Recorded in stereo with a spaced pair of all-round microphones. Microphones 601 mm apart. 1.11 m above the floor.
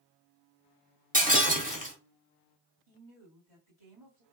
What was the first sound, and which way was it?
Breaking glass, 15° right (ahead or behind).